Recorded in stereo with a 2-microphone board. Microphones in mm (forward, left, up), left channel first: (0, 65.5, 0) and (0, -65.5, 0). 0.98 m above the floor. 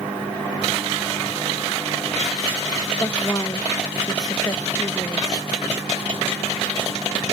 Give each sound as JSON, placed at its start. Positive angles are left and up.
{"t": 3.0, "sound": "a woman speaking", "side_deg": 30}